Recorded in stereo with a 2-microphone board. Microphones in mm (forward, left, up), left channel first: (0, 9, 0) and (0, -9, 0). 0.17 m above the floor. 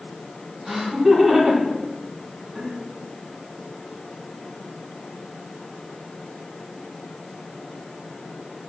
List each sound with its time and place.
0.7 s laughter: 30° right (ahead or behind), 1.8 m